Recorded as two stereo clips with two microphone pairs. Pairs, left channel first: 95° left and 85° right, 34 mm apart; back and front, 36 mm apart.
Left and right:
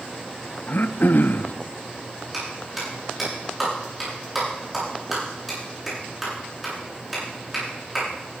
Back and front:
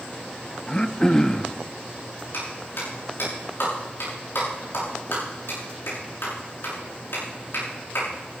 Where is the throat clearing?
110° left, 0.5 m.